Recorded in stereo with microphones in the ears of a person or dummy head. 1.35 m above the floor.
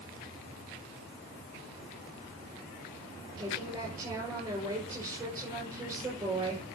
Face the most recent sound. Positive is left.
turn(degrees=-15)  # may be behind; listen again after turning